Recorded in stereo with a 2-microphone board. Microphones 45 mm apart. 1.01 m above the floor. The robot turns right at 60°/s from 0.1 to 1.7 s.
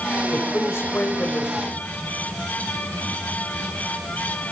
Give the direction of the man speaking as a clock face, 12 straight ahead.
10 o'clock.